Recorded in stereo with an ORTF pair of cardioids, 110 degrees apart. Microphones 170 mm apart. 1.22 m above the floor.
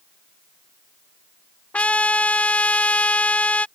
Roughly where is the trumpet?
Ahead.